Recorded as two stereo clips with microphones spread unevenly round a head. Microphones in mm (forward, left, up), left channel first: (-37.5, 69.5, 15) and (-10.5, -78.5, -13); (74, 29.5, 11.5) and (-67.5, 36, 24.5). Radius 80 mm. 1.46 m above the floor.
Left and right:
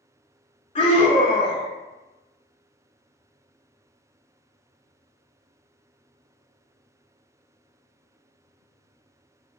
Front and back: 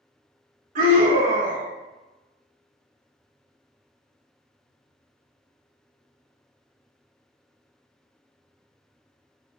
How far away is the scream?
About 2.0 m.